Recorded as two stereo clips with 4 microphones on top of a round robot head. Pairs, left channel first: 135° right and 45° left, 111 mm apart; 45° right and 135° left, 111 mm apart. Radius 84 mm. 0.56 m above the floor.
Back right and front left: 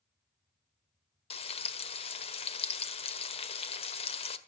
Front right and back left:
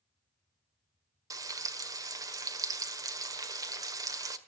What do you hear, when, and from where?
1.3 s frying: 165° right, 1.5 m